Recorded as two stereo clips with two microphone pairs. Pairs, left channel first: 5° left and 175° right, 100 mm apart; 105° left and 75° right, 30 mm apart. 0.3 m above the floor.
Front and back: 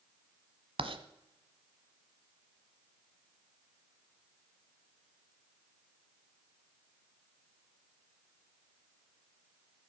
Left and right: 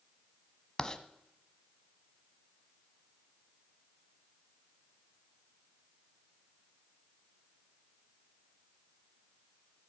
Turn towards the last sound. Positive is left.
turn(degrees=175)